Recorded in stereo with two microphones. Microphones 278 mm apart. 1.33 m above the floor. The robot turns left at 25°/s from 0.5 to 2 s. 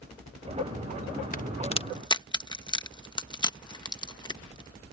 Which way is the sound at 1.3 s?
30° left (ahead or behind).